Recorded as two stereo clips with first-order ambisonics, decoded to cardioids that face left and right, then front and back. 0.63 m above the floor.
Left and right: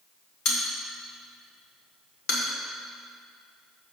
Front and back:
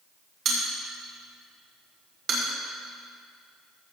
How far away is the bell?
About 1.9 m.